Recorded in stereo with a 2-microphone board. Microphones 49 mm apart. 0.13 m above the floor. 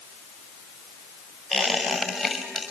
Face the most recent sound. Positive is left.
turn(degrees=-10)  # may be behind; listen again after turning